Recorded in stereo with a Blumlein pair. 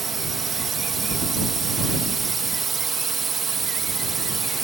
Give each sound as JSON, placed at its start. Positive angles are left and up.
{"t": 0.0, "sound": "a drone", "azimuth_deg": -20}